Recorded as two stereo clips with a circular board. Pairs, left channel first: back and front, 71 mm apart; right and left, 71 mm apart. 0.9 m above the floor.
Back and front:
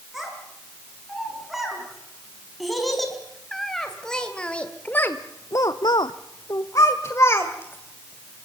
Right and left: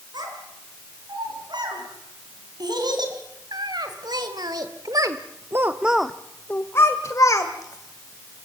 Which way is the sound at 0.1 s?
85° left.